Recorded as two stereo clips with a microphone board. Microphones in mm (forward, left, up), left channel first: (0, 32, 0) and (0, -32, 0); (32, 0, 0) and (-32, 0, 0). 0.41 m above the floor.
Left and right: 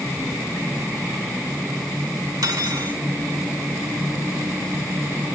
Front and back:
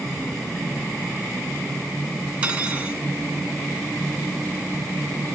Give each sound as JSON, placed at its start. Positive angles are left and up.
{"t": 2.4, "sound": "cutlery clinking", "azimuth_deg": -110, "distance_m": 2.5}